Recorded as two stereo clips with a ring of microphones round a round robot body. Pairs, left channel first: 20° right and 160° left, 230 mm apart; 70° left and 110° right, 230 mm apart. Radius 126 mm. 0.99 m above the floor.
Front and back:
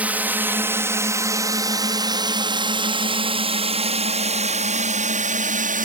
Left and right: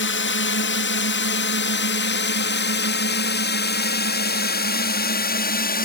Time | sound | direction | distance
0.0 | a drone | 75° left | ?